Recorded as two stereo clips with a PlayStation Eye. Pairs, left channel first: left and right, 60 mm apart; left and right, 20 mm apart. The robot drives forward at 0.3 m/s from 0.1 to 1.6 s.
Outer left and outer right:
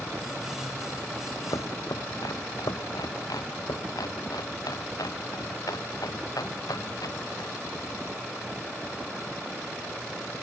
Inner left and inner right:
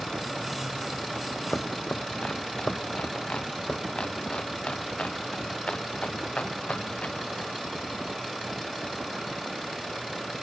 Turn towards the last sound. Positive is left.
turn(degrees=90)